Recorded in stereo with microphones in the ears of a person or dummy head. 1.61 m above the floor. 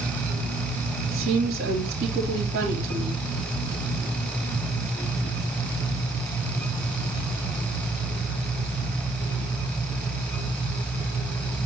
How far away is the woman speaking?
About 3 m.